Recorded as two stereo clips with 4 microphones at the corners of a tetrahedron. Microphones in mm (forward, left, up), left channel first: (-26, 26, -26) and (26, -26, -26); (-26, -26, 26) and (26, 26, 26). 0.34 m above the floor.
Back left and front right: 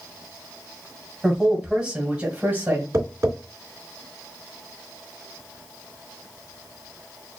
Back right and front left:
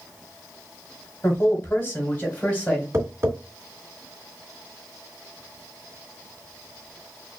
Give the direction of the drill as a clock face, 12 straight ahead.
I don't hear a drill.